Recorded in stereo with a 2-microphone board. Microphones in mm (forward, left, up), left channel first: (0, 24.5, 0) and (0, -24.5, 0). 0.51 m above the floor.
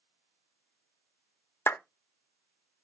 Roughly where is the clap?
Left.